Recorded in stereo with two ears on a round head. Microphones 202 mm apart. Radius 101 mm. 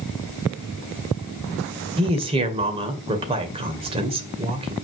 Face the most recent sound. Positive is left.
turn(degrees=-25)  # may be behind; listen again after turning